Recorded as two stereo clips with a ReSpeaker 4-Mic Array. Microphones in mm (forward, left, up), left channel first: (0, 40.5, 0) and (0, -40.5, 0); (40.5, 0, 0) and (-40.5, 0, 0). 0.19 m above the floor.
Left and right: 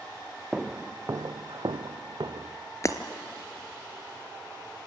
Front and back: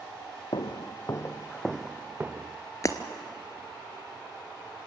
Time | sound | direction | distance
0.5 | footsteps | 10° right | 0.8 m
2.8 | breaking glass | 45° left | 1.3 m